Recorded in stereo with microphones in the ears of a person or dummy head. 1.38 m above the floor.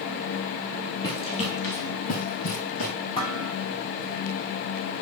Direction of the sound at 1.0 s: 20° left (ahead or behind).